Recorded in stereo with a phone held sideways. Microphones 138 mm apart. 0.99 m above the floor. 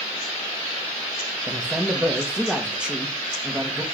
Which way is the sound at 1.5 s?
5° right (ahead or behind).